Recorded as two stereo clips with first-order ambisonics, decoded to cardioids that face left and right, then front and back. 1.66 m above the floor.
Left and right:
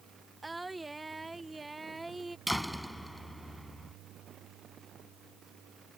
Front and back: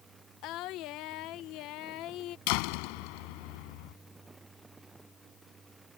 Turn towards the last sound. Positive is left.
turn(degrees=0)